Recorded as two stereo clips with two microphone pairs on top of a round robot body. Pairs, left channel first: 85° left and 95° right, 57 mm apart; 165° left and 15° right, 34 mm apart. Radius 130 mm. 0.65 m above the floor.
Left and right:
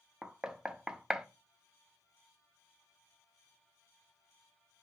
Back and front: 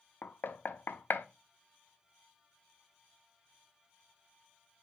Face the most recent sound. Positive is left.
turn(degrees=-175)